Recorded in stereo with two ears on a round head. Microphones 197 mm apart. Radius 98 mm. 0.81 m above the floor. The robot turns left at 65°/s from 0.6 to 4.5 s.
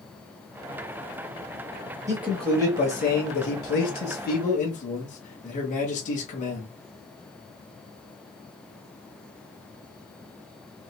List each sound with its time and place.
2.1 s a man speaking: 165° right, 1.3 m; by 6.7 s 40° left, 1.3 m